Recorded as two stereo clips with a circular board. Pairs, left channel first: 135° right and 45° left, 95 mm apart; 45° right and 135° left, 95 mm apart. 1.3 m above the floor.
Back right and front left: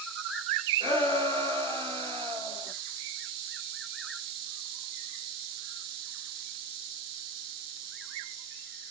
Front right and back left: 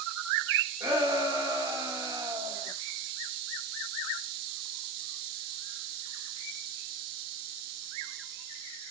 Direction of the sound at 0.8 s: 80° left.